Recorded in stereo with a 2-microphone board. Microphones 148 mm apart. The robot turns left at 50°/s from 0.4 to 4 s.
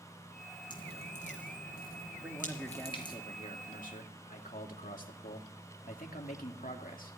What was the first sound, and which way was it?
Dripping, 30° left (ahead or behind).